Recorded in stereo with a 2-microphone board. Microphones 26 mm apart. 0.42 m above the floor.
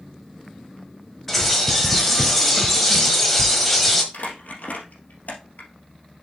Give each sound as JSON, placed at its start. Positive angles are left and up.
{"t": 1.3, "sound": "a bird", "side_deg": 5, "distance_m": 1.3}
{"t": 4.1, "sound": "crumpling", "side_deg": 70, "distance_m": 2.0}